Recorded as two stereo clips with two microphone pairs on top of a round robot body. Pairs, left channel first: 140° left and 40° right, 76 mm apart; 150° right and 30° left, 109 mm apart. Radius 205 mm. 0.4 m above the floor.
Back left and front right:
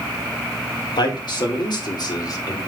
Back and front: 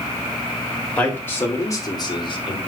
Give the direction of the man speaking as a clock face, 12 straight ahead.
8 o'clock.